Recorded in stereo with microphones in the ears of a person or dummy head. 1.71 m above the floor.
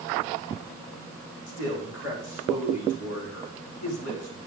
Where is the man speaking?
60° left (ahead or behind), 5 m.